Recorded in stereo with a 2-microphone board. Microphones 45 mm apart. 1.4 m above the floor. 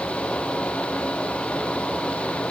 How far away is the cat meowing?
I don't hear a cat meowing.